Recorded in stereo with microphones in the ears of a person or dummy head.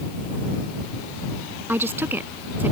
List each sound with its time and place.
1.7 s a woman speaking: 10° right (ahead or behind)